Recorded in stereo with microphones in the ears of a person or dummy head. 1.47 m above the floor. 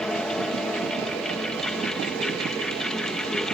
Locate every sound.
0.0 s a fan: centre (ahead or behind)